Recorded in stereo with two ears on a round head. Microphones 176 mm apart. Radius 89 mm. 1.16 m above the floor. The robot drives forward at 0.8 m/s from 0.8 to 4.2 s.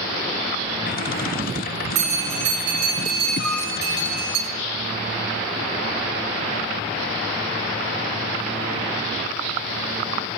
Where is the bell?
40° right (ahead or behind), 7 m; by 4.4 s 50° right (ahead or behind), 6 m.